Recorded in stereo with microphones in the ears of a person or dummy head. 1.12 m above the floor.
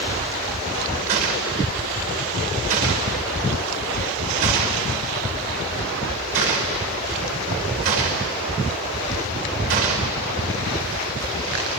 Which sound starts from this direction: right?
A gunshot, at 1.1 s.